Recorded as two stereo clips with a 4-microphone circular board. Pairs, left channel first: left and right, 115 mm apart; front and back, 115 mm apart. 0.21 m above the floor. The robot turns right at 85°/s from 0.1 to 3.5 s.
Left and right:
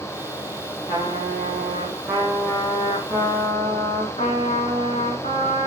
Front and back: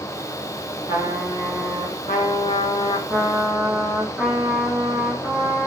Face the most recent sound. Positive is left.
turn(degrees=100)